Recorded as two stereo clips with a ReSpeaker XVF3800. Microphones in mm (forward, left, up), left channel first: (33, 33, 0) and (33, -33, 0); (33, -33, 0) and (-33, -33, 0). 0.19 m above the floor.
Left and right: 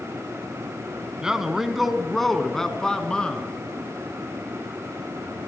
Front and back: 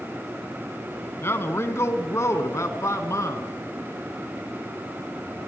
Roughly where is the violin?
I don't hear a violin.